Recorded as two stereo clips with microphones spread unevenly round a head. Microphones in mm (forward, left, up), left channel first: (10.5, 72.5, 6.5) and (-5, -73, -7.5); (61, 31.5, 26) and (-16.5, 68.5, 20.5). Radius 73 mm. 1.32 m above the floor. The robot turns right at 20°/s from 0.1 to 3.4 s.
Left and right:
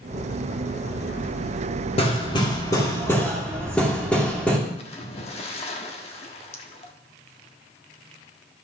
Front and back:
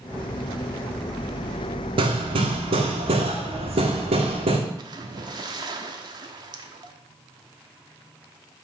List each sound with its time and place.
2.0 s hammering: 135° left, 2.5 m; by 4.6 s 165° left, 2.5 m
4.8 s a splash: 125° left, 1.3 m